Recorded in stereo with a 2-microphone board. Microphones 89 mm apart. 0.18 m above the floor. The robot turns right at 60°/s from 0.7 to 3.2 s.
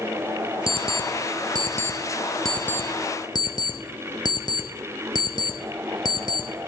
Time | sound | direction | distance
0.7 | an alarm clock | 70° right (ahead or behind) | 1.3 m